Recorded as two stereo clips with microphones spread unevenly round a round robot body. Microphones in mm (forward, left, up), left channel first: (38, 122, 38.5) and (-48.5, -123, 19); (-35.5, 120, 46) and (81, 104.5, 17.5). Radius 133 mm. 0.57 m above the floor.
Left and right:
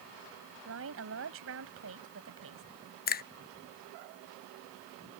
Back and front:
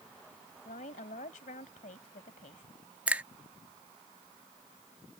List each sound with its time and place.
0.7 s a woman speaking: 145° right
3.1 s a finger snap: 40° left